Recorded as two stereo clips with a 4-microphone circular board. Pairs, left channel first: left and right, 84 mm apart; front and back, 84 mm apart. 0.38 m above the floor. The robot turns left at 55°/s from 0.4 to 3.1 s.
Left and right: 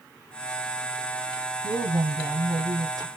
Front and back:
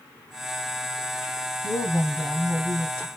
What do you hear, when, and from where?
1.6 s a woman speaking: 35° right, 2 m; by 3.1 s 115° right, 2 m